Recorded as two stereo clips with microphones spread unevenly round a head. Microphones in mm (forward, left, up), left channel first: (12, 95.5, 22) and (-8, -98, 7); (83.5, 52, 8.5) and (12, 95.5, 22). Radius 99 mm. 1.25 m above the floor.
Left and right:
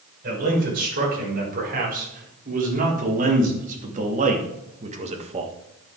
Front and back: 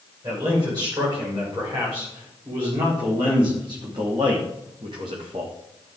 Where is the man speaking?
140° right, 6 m; by 5.5 s 155° right, 1.5 m.